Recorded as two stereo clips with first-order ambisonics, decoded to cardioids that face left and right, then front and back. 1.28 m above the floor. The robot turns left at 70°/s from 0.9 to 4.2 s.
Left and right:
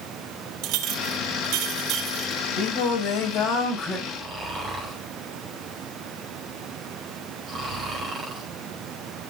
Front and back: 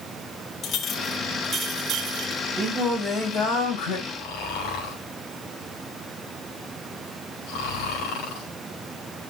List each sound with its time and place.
0.6 s a clink: 65° right, 1.5 m; by 2.4 s 170° right, 1.5 m
2.6 s singing: 100° left, 5.5 m; by 4.0 s straight ahead, 5.5 m
4.1 s snoring: 15° right, 4.5 m; by 8.5 s 25° right, 4.5 m